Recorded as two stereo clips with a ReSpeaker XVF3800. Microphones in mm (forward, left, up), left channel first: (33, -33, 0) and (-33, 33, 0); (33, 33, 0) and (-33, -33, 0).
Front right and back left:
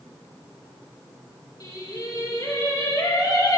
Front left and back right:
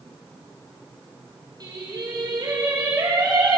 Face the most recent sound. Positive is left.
turn(degrees=-95)